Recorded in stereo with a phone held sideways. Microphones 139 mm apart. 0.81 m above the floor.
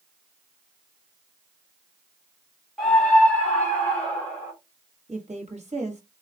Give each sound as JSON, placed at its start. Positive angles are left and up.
{"t": 2.8, "sound": "a scream", "side_deg": 0, "distance_m": 1.8}
{"t": 5.1, "sound": "a woman speaking", "side_deg": -50, "distance_m": 1.2}